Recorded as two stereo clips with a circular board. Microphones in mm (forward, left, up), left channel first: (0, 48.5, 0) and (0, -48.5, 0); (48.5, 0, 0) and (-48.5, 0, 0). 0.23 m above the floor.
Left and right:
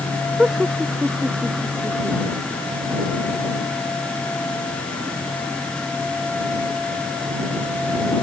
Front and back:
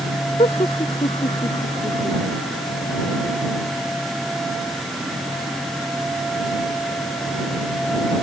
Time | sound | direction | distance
0.4 | laughter | 10° right | ?